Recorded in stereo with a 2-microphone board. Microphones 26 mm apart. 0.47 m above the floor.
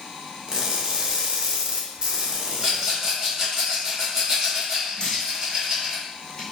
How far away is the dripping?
About 1.4 m.